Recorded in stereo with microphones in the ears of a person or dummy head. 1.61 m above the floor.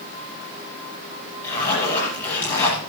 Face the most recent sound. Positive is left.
turn(degrees=15)  # may be behind; listen again after turning